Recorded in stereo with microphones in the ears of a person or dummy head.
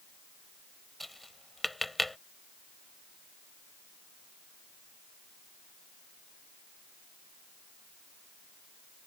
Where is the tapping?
Centre (ahead or behind).